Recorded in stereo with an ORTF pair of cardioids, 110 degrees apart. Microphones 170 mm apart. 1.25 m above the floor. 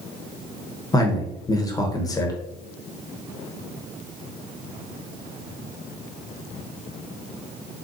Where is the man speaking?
20° left, 0.9 m.